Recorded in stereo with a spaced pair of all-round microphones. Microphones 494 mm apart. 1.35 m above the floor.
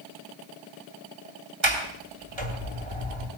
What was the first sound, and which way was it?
A sliding door, 65° right (ahead or behind).